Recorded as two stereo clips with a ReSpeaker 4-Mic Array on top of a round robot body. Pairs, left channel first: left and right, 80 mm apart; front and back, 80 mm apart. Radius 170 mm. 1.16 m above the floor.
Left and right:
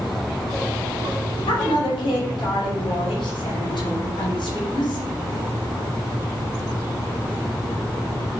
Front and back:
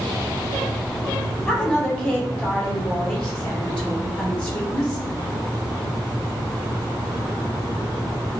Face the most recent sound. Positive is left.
turn(degrees=80)